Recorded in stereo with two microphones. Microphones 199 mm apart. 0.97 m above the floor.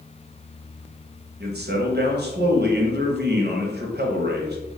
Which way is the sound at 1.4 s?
55° right (ahead or behind).